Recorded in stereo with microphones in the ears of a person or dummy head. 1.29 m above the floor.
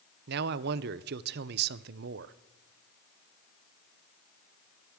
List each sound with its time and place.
0.3 s a man speaking: 60° right (ahead or behind), 0.6 m